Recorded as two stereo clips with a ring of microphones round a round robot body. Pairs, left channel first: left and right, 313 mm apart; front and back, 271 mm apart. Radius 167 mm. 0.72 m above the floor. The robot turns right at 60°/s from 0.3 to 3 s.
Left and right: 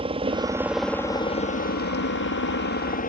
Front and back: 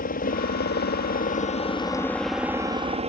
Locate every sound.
0.0 s a helicopter: 30° right; by 3.1 s 130° left